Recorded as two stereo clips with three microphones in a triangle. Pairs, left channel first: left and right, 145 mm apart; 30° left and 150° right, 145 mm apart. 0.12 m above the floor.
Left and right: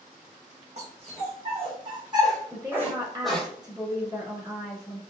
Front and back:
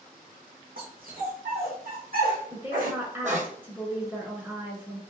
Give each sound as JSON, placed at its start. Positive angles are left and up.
{"t": 0.8, "sound": "a dog barking", "azimuth_deg": -135, "distance_m": 2.0}
{"t": 2.5, "sound": "a woman speaking", "azimuth_deg": -90, "distance_m": 1.3}